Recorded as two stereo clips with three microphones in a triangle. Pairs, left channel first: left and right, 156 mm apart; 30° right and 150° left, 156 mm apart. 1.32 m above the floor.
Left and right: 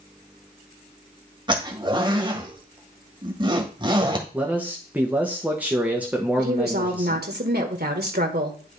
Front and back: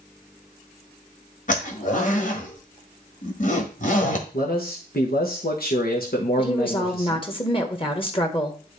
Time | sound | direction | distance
1.5 | a zipper | 35° right | 1.6 m
4.3 | a man speaking | 10° right | 1.3 m
6.4 | a woman speaking | 90° right | 1.4 m